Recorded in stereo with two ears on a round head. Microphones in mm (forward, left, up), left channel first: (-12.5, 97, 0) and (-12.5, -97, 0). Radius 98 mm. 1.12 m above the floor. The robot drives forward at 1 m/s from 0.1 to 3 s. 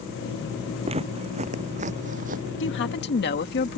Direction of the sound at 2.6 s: 60° left (ahead or behind).